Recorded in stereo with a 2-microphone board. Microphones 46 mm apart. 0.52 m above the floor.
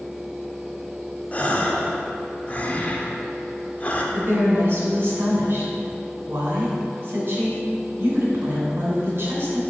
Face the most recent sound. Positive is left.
turn(degrees=-55)  # may be behind; listen again after turning